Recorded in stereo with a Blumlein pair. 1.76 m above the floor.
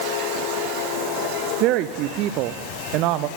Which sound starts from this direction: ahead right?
A woman speaking, at 1.6 s.